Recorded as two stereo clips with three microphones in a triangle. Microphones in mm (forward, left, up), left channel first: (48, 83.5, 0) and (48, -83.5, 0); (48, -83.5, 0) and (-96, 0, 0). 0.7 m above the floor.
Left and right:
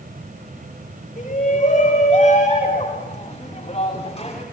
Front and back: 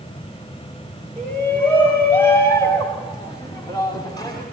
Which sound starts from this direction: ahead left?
A shout, at 1.2 s.